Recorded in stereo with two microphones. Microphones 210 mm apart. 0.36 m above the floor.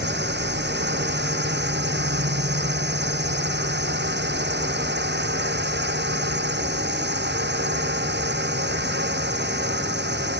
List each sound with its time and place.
0.0 s a drone: 60° right (ahead or behind)